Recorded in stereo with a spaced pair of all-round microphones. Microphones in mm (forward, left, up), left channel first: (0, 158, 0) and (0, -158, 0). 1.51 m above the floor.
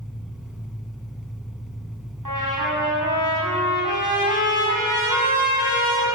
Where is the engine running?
Centre (ahead or behind), 4 m.